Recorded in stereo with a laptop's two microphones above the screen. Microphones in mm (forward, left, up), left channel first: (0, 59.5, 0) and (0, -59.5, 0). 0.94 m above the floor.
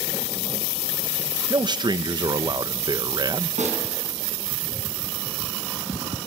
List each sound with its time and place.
1.5 s a man speaking: 40° right (ahead or behind), 0.7 m
3.6 s a snare drum: 80° right, 5.5 m